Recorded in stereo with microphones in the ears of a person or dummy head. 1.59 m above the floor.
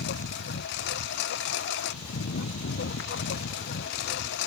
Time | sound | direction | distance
0.0 | a lawn mower | 65° left (ahead or behind) | ?